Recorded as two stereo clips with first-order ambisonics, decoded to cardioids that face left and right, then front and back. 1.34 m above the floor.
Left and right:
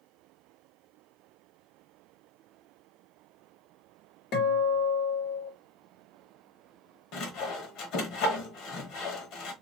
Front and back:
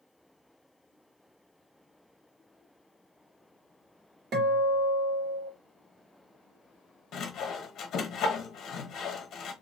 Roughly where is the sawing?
Ahead left.